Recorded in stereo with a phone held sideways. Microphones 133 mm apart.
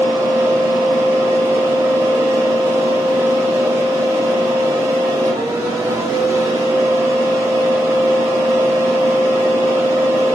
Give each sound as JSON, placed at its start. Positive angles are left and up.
{"t": 0.0, "sound": "a fan", "side_deg": -20, "distance_m": 1.1}